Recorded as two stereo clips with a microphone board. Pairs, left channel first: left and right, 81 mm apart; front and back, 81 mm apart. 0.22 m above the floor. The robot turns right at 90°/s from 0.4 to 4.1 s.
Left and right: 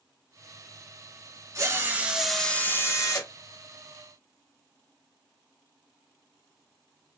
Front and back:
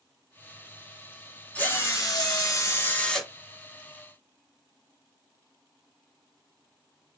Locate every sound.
1.6 s a drill: 65° right, 1.0 m; by 3.3 s 90° left, 1.0 m